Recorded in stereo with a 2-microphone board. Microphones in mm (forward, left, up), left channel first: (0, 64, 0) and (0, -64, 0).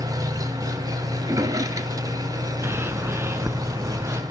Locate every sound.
0.0 s an engine running: 30° right (ahead or behind), 1.7 m
1.2 s a drawer: 25° right (ahead or behind), 1.6 m
2.6 s a bird: 20° right (ahead or behind), 1.3 m